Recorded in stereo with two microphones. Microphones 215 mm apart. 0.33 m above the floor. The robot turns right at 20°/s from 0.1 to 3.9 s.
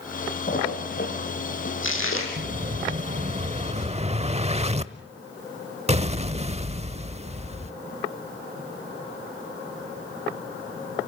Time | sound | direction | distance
0.5 | a splash | 40° left (ahead or behind) | 6 m
2.4 | an explosion | 85° right | 0.7 m